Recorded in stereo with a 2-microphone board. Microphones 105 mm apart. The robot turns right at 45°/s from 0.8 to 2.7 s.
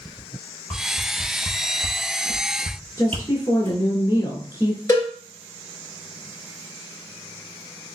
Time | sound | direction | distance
0.7 | a whoosh | 15° left (ahead or behind) | 0.7 m
3.0 | a woman speaking | 30° left (ahead or behind) | 1.2 m
4.9 | a cowbell | 30° left (ahead or behind) | 1.7 m